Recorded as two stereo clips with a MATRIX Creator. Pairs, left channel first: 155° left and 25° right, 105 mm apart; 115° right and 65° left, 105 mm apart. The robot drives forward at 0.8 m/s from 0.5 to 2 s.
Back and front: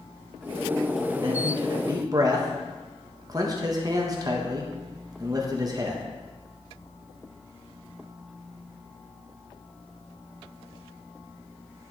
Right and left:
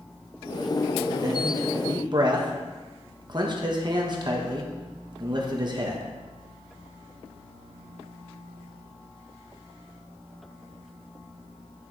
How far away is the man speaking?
About 1.8 m.